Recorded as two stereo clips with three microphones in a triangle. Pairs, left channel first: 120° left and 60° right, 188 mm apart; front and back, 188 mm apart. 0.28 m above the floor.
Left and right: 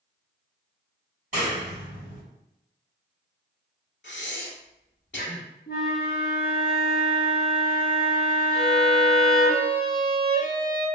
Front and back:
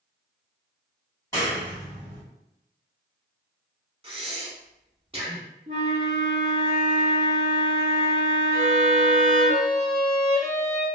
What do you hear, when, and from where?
1.3 s a clap: 65° right, 1.7 m
4.0 s breathing: 125° left, 0.6 m
5.7 s a flute: 140° left, 0.6 m
8.5 s a violin: 15° left, 1.5 m